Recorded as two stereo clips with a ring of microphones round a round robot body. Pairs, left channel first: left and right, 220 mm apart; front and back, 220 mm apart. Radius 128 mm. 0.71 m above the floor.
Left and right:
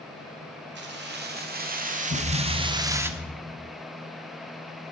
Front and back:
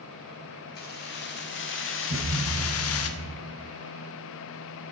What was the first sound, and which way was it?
Keys jangling, 50° right.